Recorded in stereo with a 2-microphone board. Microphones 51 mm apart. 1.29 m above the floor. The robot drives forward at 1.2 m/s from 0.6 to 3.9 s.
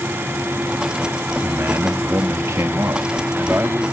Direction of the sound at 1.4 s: 60° right (ahead or behind).